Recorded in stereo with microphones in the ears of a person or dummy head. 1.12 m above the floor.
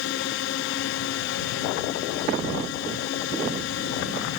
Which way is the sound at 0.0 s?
65° left (ahead or behind).